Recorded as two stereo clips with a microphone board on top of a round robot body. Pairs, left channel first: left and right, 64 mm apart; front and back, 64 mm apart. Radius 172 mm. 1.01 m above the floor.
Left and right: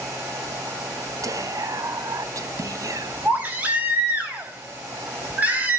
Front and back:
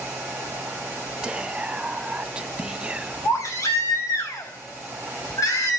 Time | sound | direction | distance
1.2 | whispering | 105° right | 1.6 m
3.2 | a baby crying | 25° right | 4.5 m